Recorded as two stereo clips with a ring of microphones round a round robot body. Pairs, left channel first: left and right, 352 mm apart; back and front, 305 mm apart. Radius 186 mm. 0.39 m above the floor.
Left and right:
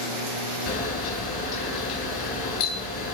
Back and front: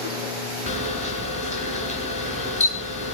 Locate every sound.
0.7 s a camera shutter: 115° left, 3.5 m